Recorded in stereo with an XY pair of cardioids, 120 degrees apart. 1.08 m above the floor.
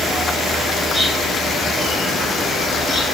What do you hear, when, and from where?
0.0 s an insect: 20° left, 1.2 m